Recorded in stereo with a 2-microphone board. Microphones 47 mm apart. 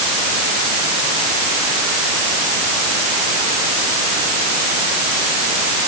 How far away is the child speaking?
I don't hear a child speaking.